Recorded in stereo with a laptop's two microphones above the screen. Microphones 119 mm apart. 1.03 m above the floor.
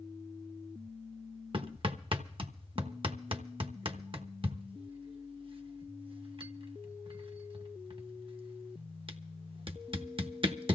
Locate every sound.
1.5 s hammering: 50° right (ahead or behind), 1.0 m